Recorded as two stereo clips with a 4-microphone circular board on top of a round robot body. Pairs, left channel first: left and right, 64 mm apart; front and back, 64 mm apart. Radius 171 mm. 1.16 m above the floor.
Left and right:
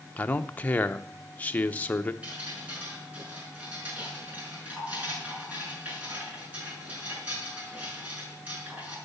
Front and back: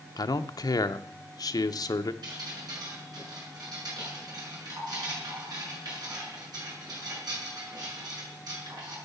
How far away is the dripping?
About 7 m.